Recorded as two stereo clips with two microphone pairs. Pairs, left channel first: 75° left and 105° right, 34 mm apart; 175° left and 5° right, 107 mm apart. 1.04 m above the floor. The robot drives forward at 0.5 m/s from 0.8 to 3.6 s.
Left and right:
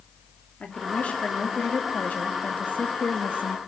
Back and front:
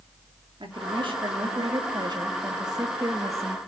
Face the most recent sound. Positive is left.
turn(degrees=60)